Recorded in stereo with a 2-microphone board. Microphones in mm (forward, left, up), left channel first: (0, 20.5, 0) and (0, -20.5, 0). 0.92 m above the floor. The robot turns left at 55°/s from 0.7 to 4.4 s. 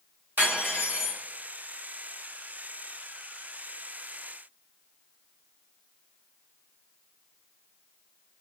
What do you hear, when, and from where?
0.4 s cutlery clinking: 60° right (ahead or behind), 1.3 m; by 1.2 s 30° right (ahead or behind), 1.3 m